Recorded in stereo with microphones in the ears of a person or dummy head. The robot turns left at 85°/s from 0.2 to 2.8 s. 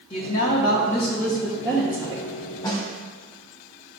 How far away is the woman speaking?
About 0.6 m.